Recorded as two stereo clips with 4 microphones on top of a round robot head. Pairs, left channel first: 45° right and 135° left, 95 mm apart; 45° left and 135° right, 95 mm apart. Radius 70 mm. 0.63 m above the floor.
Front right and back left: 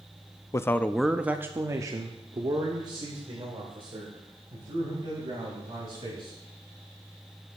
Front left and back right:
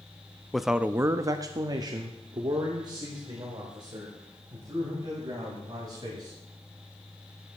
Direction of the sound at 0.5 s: 40° right.